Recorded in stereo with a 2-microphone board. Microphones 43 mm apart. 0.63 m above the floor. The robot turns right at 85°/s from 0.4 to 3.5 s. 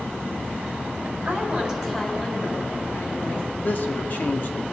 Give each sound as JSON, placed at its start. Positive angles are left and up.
{"t": 1.2, "sound": "a woman speaking", "azimuth_deg": -60, "distance_m": 5.0}
{"t": 3.6, "sound": "a man speaking", "side_deg": 45, "distance_m": 1.0}